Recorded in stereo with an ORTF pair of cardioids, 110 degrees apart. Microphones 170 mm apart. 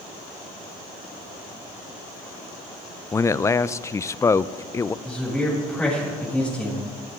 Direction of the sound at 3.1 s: 20° left.